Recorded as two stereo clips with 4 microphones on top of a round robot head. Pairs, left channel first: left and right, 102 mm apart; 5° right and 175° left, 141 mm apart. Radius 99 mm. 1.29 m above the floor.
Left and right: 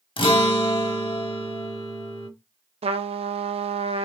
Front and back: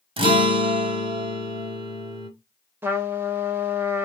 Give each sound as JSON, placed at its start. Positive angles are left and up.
{"t": 0.2, "sound": "a guitar", "azimuth_deg": 125, "distance_m": 1.2}
{"t": 2.8, "sound": "a trumpet", "azimuth_deg": -105, "distance_m": 0.7}